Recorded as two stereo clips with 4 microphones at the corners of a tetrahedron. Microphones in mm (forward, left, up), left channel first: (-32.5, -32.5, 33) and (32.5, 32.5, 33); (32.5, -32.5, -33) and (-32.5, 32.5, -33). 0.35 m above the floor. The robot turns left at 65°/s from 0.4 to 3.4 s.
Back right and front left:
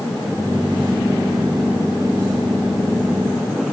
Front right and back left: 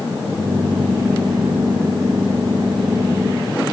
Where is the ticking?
I don't hear ticking.